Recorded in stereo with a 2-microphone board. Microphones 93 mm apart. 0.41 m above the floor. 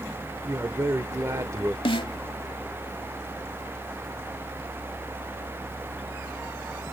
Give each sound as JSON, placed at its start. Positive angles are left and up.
{"t": 0.5, "sound": "a man speaking", "side_deg": -35, "distance_m": 0.9}
{"t": 1.9, "sound": "a snare drum", "side_deg": 75, "distance_m": 0.9}